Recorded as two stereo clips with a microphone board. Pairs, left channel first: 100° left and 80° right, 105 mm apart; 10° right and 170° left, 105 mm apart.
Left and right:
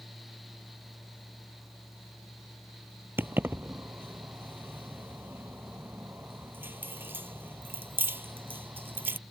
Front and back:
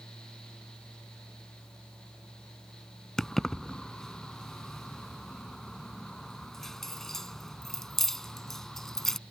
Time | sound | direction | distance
3.2 | keys jangling | 90° right | ?